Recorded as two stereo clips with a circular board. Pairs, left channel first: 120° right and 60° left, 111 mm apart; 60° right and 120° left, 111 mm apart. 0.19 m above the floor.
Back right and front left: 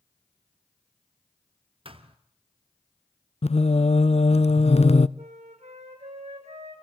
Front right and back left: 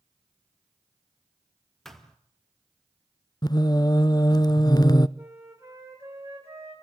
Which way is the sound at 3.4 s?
110° right.